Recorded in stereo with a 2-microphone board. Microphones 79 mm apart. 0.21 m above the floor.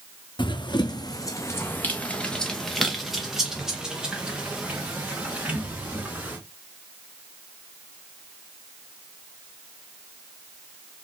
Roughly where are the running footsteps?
Left.